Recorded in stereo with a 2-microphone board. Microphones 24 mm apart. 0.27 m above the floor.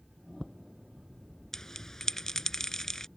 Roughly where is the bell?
Centre.